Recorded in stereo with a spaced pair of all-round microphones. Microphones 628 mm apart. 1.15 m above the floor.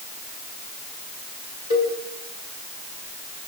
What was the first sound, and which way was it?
A cowbell, 45° left (ahead or behind).